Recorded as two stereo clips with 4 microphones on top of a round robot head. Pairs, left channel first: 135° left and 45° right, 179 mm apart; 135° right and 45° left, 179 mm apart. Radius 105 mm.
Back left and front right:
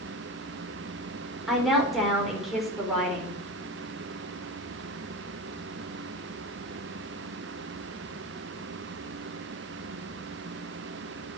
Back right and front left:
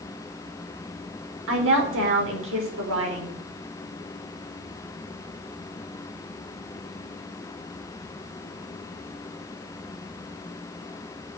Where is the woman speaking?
45° left, 4 m.